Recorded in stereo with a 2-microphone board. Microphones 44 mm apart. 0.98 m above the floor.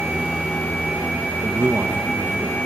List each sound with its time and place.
1.4 s a man speaking: 55° right (ahead or behind), 0.7 m